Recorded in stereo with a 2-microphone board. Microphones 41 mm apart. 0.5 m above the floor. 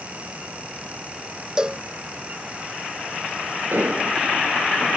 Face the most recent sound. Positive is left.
turn(degrees=-55)  # may be behind; listen again after turning